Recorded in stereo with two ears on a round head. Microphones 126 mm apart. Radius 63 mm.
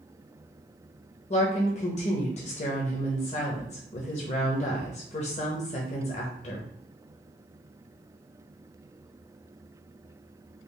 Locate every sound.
1.3 s a woman speaking: 50° left (ahead or behind), 0.7 m